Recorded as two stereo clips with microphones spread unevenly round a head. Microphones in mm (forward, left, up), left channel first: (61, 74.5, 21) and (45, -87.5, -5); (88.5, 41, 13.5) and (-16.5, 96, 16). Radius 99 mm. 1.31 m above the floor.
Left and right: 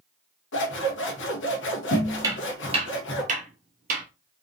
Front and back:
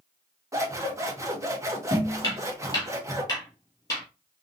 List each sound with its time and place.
0.5 s scissors: 90° left, 1.3 m
2.2 s footsteps: 35° right, 1.4 m; by 4.0 s 95° right, 1.7 m